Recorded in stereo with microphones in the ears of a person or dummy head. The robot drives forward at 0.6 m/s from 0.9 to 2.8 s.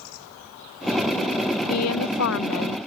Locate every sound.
1.7 s a woman speaking: 85° left; by 2.8 s 70° left (ahead or behind)